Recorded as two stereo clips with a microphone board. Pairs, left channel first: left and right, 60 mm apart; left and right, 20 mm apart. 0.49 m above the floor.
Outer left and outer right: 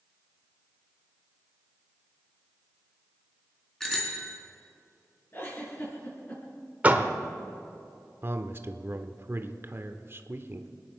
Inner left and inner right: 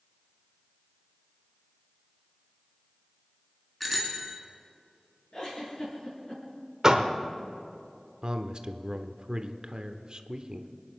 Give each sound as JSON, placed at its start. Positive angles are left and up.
{"t": 3.8, "sound": "a bicycle bell", "side_deg": 5, "distance_m": 3.5}
{"t": 5.3, "sound": "a giggle", "side_deg": 35, "distance_m": 5.5}
{"t": 6.8, "sound": "a door slam", "side_deg": -25, "distance_m": 1.2}
{"t": 8.2, "sound": "a man speaking", "side_deg": -40, "distance_m": 1.0}